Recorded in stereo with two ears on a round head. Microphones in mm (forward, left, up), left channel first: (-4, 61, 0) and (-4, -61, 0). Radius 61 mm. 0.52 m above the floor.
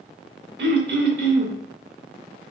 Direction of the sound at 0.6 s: 80° right.